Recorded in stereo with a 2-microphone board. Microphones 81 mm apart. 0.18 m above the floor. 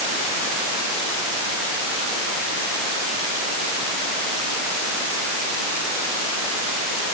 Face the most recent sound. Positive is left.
No sound to turn to.